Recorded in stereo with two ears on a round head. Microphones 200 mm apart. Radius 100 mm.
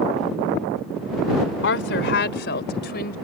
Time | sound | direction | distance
1.6 | a woman speaking | 55° left (ahead or behind) | ?